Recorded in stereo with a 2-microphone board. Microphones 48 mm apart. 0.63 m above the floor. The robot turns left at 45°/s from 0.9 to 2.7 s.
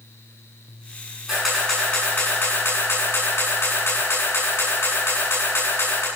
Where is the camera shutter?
175° right, 8 m; by 6.1 s 125° left, 8 m.